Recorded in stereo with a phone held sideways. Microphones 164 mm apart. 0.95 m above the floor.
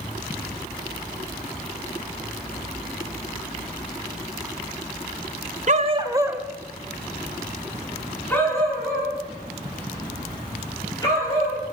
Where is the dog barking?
50° right (ahead or behind), 0.9 m; by 11.6 s 20° left (ahead or behind), 7.5 m.